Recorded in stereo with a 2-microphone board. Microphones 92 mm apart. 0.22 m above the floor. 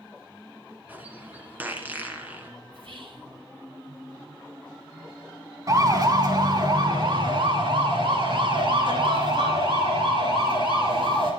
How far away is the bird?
About 2.5 m.